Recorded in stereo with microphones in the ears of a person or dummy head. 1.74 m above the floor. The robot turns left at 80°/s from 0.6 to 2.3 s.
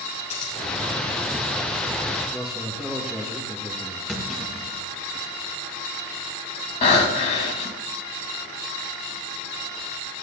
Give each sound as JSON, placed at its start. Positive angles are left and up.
{"t": 0.3, "sound": "scissors", "side_deg": 35, "distance_m": 3.5}
{"t": 2.3, "sound": "a man speaking", "side_deg": 0, "distance_m": 3.0}
{"t": 4.1, "sound": "a clunk", "side_deg": 5, "distance_m": 3.0}
{"t": 6.8, "sound": "breathing", "side_deg": 35, "distance_m": 2.0}